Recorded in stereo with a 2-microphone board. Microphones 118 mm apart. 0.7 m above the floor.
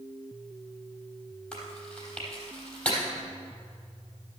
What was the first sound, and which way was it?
Chewing, 5° left (ahead or behind).